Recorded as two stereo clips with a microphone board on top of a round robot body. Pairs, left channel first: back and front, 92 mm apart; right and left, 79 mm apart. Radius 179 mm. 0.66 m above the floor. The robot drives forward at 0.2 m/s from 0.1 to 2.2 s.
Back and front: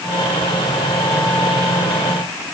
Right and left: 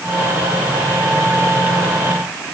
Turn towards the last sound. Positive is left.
No sound to turn to.